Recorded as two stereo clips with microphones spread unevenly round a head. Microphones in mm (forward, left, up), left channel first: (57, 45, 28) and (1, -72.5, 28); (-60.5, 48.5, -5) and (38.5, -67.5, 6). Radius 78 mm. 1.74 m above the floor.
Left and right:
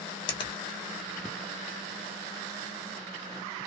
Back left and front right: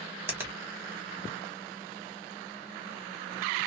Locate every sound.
0.3 s a finger snap: 20° left, 1.3 m